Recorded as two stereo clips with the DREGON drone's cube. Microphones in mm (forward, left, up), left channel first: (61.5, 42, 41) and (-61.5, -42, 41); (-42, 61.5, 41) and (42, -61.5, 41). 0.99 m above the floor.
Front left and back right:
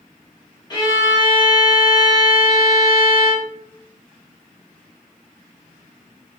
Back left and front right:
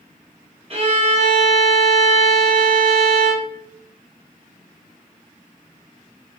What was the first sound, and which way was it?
A violin, 20° right.